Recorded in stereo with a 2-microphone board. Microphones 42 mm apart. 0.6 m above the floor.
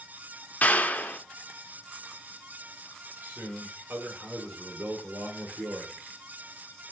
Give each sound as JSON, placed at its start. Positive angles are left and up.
{"t": 0.6, "sound": "a clap", "side_deg": 40, "distance_m": 0.7}
{"t": 3.2, "sound": "a man speaking", "side_deg": -70, "distance_m": 1.6}